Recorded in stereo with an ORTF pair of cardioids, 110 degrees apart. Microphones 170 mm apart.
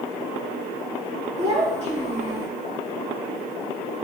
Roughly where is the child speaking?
Ahead right.